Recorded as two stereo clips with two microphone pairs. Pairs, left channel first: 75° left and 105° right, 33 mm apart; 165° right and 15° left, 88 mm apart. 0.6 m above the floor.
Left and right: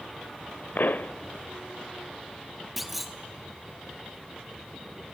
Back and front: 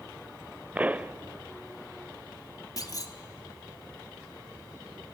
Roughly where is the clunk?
Behind.